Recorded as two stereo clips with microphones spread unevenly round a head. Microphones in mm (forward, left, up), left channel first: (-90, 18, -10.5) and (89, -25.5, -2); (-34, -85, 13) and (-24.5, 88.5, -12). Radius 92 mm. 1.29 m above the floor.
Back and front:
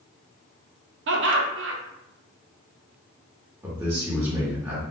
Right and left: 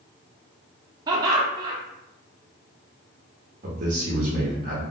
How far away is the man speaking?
About 0.7 m.